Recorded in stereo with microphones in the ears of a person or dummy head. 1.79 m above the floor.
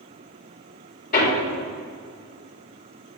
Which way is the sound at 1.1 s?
50° left (ahead or behind).